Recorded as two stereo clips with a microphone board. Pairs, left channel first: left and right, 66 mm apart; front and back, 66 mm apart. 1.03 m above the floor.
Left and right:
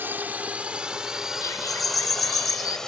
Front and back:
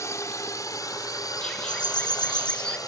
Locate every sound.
0.0 s a drone: 35° right; by 2.9 s 10° left
1.4 s a bird: 70° left